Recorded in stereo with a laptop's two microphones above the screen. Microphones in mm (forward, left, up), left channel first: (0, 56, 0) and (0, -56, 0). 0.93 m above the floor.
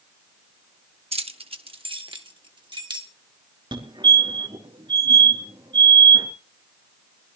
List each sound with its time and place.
1.1 s keys jangling: 60° right (ahead or behind), 0.9 m; by 3.1 s 40° right (ahead or behind), 2.0 m
3.7 s a fire alarm: 45° right (ahead or behind), 3 m